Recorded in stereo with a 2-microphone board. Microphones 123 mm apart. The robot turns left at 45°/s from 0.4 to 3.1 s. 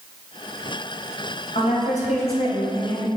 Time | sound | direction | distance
1.6 | a woman speaking | 110° left | 2.5 m